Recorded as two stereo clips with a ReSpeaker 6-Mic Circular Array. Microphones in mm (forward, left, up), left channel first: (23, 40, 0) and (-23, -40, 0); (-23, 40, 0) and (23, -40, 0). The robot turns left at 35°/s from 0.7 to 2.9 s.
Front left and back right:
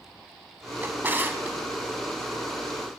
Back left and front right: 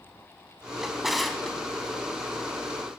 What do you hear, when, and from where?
0.8 s a drawer: 135° right, 0.7 m; by 1.6 s 160° right, 0.7 m